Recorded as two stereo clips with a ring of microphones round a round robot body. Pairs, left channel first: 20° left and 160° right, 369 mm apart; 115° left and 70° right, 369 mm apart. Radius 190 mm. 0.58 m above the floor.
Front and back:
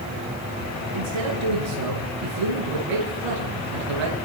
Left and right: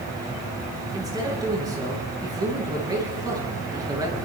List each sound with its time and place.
0.9 s a man speaking: 150° right, 9.5 m